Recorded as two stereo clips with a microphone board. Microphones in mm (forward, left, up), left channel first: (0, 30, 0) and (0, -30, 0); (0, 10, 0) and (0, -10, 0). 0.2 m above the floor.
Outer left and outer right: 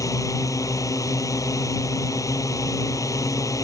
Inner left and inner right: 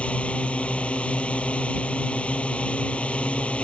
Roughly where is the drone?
Left.